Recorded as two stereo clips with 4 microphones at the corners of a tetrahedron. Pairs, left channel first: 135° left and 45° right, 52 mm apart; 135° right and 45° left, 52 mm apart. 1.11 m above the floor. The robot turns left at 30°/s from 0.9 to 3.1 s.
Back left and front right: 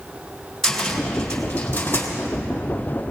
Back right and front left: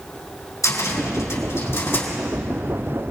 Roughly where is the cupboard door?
Behind right.